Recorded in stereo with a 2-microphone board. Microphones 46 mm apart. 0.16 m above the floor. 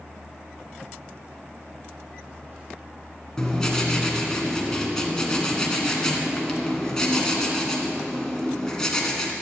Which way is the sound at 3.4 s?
15° left (ahead or behind).